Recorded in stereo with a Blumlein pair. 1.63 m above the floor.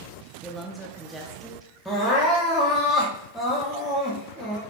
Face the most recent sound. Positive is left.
turn(degrees=-5)